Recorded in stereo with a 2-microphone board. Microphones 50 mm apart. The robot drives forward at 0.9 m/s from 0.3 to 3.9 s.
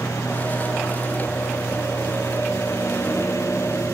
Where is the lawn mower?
90° left; by 3.9 s 85° left.